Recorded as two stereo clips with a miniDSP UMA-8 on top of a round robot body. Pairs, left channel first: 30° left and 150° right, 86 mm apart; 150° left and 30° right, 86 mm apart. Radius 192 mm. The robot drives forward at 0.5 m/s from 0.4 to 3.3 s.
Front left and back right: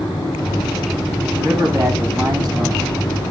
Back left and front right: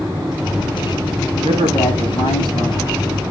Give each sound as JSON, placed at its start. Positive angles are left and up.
{"t": 1.4, "sound": "a man speaking", "azimuth_deg": 160, "distance_m": 8.5}